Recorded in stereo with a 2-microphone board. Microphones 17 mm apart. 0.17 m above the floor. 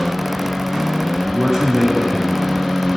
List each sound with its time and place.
1.3 s a man speaking: 60° right (ahead or behind), 2.5 m